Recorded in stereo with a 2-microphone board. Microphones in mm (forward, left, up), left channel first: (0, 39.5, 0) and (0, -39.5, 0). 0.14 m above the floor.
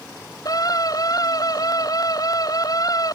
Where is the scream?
50° left (ahead or behind).